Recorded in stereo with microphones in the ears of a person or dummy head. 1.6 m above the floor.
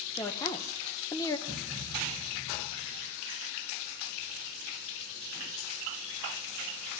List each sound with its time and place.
0.2 s a woman speaking: 20° left (ahead or behind), 1.2 m
1.5 s a thud: centre (ahead or behind), 2.5 m